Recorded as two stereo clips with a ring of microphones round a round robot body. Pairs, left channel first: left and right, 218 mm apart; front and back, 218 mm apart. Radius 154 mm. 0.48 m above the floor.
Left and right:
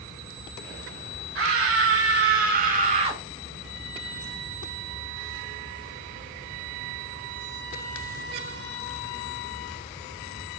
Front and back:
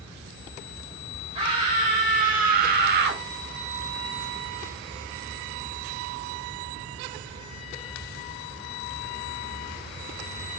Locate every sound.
1.4 s a scream: 110° right, 1.9 m; by 3.2 s 155° right, 1.4 m